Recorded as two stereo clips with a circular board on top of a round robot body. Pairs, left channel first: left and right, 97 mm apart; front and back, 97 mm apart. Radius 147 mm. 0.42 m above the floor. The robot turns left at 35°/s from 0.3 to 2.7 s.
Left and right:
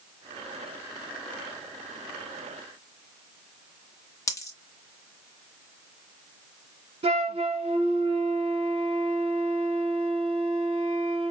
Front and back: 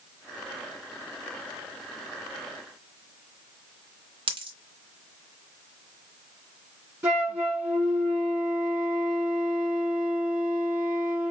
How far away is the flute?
About 3.5 m.